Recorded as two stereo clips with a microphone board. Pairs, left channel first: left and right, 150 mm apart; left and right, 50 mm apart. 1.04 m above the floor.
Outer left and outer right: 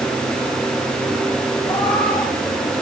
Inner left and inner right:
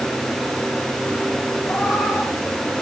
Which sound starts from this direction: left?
A cat meowing, at 1.6 s.